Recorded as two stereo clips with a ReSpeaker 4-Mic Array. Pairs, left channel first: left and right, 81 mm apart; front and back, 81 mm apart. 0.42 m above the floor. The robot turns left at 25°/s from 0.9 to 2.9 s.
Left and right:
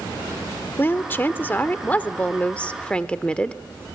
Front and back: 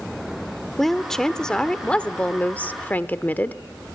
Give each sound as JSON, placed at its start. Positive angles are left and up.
{"t": 0.8, "sound": "a woman speaking", "azimuth_deg": 85, "distance_m": 0.8}